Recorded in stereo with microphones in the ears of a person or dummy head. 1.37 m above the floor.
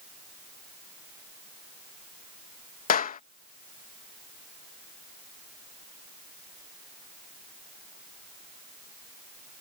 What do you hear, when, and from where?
2.9 s a clap: 45° left (ahead or behind)